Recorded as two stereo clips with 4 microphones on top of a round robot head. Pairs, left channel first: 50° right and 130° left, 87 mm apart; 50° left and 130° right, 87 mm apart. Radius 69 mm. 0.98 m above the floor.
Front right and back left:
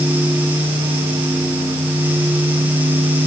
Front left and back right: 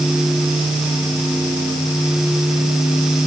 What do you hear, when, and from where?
Only background noise.